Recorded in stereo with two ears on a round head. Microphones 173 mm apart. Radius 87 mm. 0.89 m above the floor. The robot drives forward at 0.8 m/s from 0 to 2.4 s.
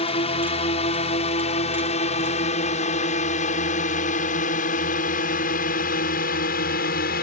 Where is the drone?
35° left (ahead or behind); by 7.2 s 55° left (ahead or behind).